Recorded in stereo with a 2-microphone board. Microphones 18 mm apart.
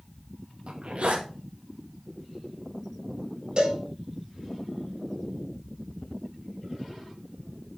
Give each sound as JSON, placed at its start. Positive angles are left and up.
{"t": 0.7, "sound": "a zipper", "side_deg": -80, "distance_m": 2.5}
{"t": 3.6, "sound": "a cowbell", "side_deg": -45, "distance_m": 4.5}